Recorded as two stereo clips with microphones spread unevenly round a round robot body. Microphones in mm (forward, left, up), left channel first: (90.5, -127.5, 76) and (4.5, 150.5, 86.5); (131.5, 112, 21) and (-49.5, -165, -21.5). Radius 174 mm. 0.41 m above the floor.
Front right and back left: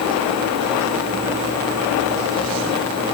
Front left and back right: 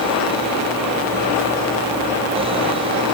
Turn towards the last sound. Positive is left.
No sound to turn to.